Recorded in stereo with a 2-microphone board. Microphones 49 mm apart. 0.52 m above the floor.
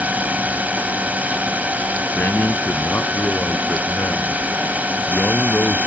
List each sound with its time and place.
0.0 s a drone: 30° right (ahead or behind)
2.1 s a man speaking: 45° left (ahead or behind)